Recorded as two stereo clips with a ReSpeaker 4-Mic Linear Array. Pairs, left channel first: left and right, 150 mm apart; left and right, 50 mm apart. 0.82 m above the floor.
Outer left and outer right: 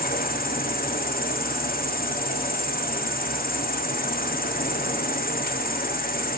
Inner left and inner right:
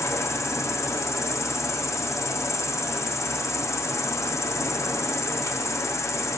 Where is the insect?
80° left, 0.8 m.